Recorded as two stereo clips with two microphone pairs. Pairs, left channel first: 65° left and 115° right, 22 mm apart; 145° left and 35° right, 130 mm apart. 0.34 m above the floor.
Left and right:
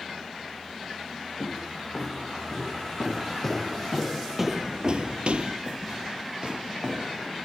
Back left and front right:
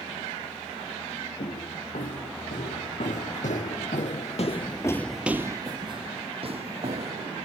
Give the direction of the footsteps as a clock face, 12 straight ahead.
8 o'clock.